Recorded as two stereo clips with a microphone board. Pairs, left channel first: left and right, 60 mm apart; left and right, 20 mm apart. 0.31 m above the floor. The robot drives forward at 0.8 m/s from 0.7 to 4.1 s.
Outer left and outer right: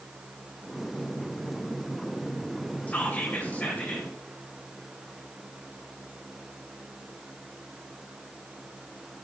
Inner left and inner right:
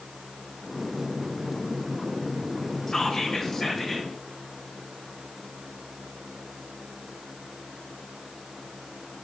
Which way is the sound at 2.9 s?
30° left (ahead or behind).